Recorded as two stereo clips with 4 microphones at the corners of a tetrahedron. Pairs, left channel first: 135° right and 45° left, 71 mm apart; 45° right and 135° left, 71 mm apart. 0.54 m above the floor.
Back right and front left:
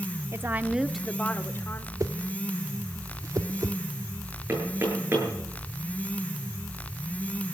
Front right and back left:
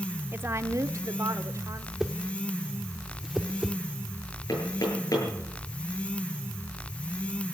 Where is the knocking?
10° right, 9 m.